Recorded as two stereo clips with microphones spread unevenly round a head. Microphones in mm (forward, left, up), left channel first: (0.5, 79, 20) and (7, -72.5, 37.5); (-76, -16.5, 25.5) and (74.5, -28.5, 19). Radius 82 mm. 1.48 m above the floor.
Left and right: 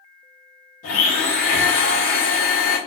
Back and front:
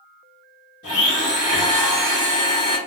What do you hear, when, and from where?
0.8 s a blender: 135° left, 1.8 m